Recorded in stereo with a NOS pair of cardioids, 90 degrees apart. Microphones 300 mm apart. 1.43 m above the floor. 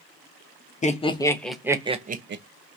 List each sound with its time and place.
0.8 s laughter: 25° left, 1.0 m; by 2.4 s 40° right, 0.8 m